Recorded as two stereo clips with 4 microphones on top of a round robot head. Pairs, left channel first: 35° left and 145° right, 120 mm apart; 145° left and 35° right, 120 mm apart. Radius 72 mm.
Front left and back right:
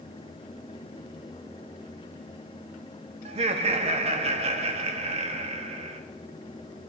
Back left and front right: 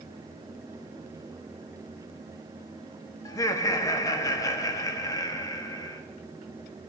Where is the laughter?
160° right, 1.3 m.